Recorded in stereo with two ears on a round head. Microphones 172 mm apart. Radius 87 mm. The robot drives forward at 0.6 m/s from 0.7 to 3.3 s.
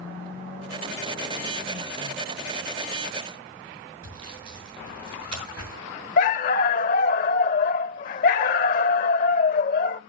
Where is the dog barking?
45° left (ahead or behind), 0.7 m.